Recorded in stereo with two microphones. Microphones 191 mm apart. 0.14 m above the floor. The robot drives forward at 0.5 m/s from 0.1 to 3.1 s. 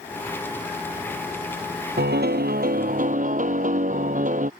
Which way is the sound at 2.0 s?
75° right (ahead or behind).